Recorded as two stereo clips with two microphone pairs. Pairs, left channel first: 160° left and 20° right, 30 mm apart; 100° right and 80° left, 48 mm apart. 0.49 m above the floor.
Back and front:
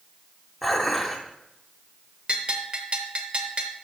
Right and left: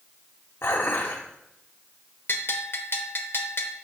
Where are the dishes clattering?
110° right, 1.4 m.